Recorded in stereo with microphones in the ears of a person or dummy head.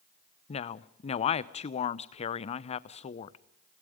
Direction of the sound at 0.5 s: 35° left (ahead or behind).